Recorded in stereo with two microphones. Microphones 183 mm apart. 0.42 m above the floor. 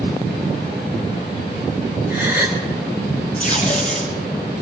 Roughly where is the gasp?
Centre.